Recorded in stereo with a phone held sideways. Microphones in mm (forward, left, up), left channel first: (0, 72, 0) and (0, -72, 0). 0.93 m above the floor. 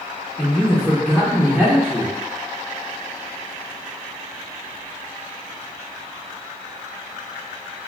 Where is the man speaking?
5° left (ahead or behind), 0.6 m.